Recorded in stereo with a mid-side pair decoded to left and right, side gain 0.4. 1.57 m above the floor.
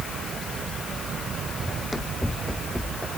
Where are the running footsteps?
25° left; by 3.2 s 5° left.